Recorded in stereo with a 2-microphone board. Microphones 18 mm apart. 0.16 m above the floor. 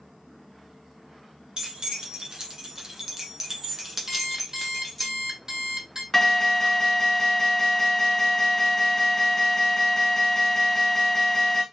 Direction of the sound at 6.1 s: 15° left (ahead or behind).